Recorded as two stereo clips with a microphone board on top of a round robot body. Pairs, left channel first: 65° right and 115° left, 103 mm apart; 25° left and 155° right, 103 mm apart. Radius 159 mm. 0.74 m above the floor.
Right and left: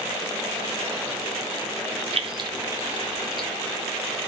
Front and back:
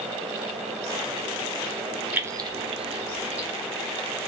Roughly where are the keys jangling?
Behind left.